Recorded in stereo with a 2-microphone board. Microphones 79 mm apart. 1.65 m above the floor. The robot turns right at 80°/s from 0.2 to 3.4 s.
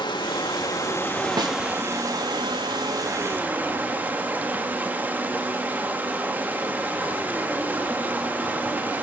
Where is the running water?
80° left, 2 m; by 9.1 s 25° right, 2 m.